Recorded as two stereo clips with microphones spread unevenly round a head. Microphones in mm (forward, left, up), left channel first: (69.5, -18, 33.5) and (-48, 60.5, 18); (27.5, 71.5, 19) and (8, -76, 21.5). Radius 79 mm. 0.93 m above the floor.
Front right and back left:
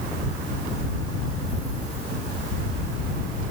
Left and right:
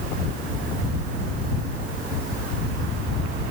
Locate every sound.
Only background noise.